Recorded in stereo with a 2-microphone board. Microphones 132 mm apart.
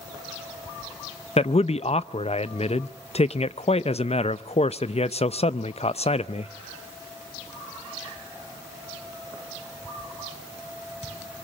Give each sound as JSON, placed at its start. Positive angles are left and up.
{"t": 1.4, "sound": "a man speaking", "side_deg": 55, "distance_m": 0.6}